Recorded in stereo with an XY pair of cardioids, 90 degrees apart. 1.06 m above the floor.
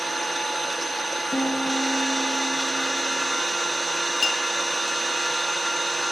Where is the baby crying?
No baby crying in this recording.